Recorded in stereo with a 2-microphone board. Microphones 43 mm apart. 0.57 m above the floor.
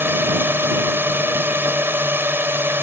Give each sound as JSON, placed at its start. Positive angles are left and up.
{"t": 0.0, "sound": "a drone", "side_deg": -60}